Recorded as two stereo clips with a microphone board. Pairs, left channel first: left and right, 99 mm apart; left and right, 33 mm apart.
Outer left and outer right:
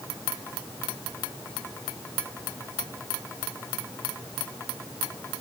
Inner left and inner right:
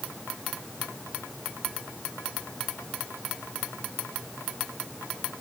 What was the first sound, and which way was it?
Only background noise.